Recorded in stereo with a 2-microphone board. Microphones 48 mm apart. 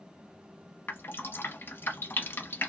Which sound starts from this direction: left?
Dripping, at 0.9 s.